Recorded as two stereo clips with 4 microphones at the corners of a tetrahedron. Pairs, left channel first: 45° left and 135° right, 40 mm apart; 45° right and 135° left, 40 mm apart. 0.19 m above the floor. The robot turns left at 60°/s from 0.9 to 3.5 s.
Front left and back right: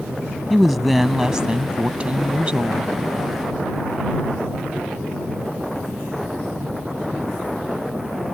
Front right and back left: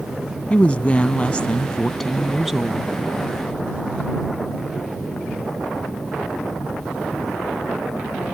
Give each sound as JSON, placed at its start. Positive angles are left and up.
{"t": 0.5, "sound": "a woman speaking", "azimuth_deg": -50}